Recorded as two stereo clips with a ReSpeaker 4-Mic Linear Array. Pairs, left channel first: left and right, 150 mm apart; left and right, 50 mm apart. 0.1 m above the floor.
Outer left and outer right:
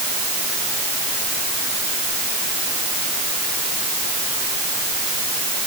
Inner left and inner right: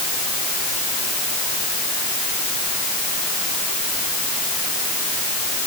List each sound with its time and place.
Only background noise.